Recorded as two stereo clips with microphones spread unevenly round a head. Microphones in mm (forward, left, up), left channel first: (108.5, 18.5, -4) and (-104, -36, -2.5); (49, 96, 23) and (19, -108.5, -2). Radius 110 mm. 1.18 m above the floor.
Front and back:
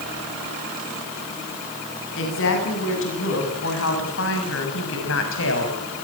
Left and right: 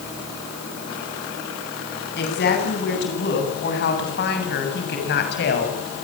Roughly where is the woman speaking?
Ahead left.